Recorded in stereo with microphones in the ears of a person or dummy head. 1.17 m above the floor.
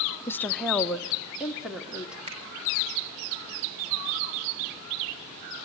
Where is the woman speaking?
15° left (ahead or behind), 0.6 m; by 2.2 s 5° right (ahead or behind), 2.5 m.